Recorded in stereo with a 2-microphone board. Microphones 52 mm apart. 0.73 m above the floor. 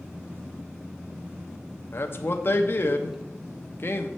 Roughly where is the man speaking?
Left.